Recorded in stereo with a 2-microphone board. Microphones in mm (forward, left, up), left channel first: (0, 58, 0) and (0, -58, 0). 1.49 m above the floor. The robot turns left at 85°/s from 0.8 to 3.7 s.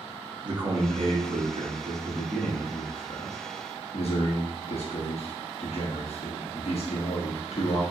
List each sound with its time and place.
0.4 s a man speaking: 45° right, 0.8 m; by 7.8 s 70° left, 0.8 m